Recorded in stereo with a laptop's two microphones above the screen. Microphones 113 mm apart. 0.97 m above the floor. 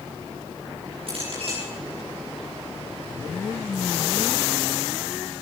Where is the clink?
55° right (ahead or behind), 7 m.